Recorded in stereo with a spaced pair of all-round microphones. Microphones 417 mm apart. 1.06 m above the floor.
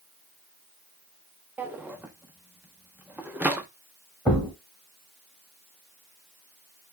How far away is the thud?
About 1.9 m.